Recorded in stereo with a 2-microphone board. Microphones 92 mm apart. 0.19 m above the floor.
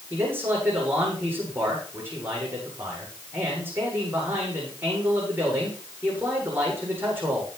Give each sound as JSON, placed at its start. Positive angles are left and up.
{"t": 0.1, "sound": "a man speaking", "side_deg": -25, "distance_m": 9.0}